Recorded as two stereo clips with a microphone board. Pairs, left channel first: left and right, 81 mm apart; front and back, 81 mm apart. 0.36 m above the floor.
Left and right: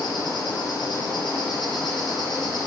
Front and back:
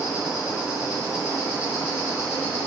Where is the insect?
95° left, 2.5 m.